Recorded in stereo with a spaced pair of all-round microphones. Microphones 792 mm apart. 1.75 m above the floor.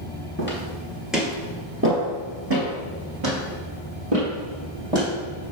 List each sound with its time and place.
0.4 s footsteps: 15° left (ahead or behind), 1.8 m; by 5.1 s 50° right (ahead or behind), 3.5 m